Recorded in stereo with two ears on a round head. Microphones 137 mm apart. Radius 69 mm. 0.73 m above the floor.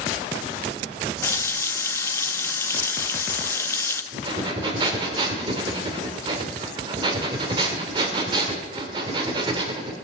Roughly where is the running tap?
Centre.